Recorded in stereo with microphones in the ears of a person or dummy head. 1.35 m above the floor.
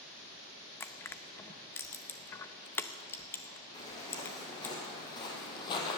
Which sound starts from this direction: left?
Footsteps, at 3.7 s.